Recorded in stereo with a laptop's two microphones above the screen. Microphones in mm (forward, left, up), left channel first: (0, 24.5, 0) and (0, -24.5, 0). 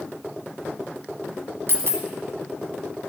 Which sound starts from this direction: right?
A dropped coin, at 1.7 s.